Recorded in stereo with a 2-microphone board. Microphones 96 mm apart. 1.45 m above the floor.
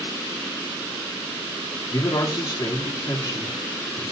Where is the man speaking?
45° left (ahead or behind), 3.5 m.